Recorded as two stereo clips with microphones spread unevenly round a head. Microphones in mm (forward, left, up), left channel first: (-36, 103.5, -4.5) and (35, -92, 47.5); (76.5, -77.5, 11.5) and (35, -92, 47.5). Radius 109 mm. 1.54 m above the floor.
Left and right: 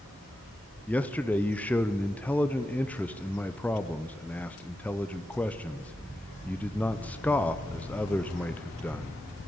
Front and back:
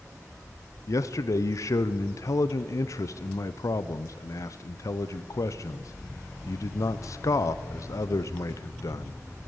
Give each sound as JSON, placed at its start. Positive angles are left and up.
{"t": 0.9, "sound": "a man speaking", "azimuth_deg": 25, "distance_m": 0.6}